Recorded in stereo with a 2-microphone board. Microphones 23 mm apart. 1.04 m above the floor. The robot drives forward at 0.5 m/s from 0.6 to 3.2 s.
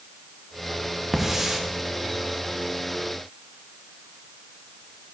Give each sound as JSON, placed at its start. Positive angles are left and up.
{"t": 1.1, "sound": "a hiss", "side_deg": -10, "distance_m": 1.2}